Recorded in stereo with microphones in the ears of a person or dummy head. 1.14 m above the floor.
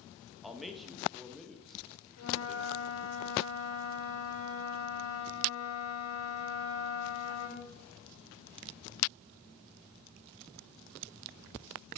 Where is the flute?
75° left (ahead or behind), 3 m.